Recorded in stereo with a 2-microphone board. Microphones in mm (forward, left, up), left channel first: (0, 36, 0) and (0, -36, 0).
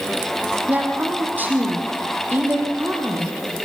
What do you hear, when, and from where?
0.7 s a woman speaking: 25° right (ahead or behind), 7 m